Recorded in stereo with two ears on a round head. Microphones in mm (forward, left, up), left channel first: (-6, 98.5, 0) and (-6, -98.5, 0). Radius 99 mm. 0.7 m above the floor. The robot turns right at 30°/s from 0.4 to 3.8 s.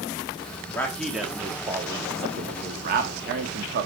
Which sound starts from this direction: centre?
A man speaking, at 0.7 s.